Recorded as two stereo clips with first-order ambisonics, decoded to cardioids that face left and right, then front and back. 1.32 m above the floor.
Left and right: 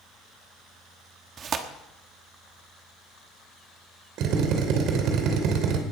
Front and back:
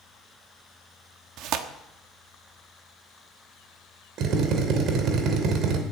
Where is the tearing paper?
145° right, 1.2 m.